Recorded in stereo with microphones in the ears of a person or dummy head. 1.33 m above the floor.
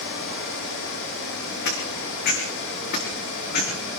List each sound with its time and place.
1.6 s footsteps: 60° left (ahead or behind), 5 m; by 3.7 s 50° left (ahead or behind), 6.5 m